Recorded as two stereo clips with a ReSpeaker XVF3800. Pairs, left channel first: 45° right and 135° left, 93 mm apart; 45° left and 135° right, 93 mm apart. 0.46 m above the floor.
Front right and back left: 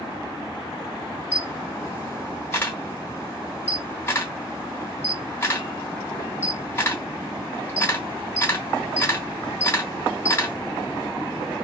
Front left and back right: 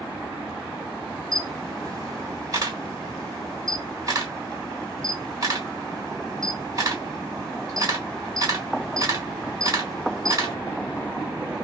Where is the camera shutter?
100° right, 1.1 m.